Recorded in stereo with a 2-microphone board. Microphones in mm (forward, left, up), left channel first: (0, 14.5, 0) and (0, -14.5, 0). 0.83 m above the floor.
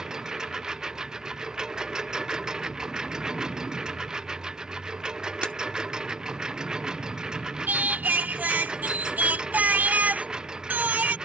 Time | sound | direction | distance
0.0 | a lawn mower | 25° right (ahead or behind) | ?
5.4 | breaking glass | 40° left (ahead or behind) | ?
7.7 | singing | 85° right | ?